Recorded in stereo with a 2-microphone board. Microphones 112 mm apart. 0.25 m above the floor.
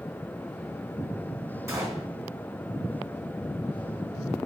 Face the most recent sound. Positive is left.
turn(degrees=-25)  # may be behind; listen again after turning